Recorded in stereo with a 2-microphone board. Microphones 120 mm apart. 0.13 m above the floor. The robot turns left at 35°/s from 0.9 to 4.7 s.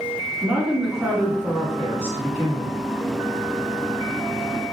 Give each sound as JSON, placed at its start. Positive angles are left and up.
{"t": 0.4, "sound": "a woman speaking", "side_deg": -10, "distance_m": 1.4}